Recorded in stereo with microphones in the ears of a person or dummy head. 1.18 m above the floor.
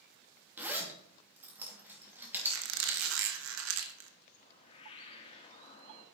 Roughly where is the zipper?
Centre.